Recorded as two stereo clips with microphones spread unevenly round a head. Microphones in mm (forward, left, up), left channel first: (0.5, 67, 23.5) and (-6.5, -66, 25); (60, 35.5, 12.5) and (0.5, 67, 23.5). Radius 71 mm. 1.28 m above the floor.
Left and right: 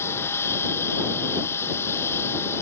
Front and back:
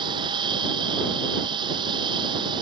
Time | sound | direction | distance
0.0 | a machine running | 160° left | ?